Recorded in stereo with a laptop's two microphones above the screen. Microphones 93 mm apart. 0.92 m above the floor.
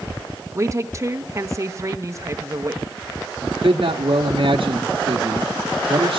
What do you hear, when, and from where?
0.6 s a woman speaking: 35° right (ahead or behind), 1.0 m
3.4 s a man speaking: 80° right, 1.3 m